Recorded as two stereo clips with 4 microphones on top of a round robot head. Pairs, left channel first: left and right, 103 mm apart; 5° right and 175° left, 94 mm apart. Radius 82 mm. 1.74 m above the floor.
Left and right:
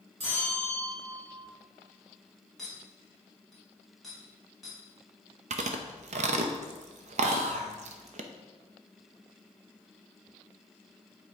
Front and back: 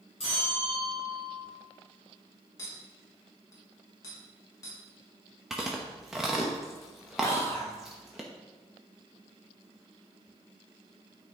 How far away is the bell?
About 2 m.